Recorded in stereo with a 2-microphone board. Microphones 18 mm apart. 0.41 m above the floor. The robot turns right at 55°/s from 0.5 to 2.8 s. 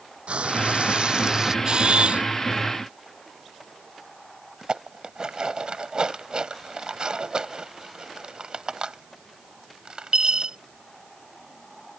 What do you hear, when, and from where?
0.3 s frying: 85° right; by 1.6 s 30° right
1.6 s a camera shutter: 135° right; by 2.2 s 100° right
4.6 s dishes clattering: 50° right (ahead or behind)